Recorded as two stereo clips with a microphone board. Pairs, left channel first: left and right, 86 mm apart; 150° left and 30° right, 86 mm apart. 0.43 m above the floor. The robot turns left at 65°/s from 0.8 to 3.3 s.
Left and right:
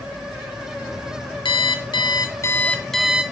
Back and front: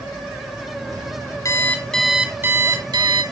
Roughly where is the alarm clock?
Left.